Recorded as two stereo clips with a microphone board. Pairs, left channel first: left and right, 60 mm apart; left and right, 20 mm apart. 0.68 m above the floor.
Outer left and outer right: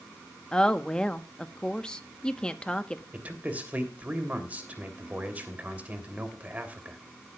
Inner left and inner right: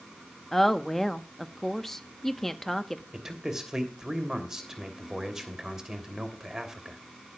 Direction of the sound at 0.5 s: 15° left (ahead or behind).